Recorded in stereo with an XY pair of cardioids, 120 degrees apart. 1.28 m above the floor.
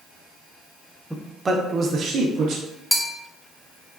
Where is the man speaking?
10° right, 0.7 m; by 2.6 s 75° right, 1.0 m.